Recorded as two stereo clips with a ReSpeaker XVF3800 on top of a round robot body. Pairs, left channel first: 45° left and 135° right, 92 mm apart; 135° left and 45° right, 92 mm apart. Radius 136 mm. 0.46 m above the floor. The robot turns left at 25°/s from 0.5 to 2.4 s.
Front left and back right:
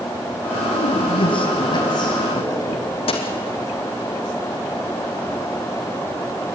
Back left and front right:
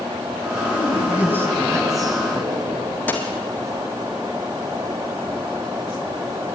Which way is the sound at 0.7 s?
35° left.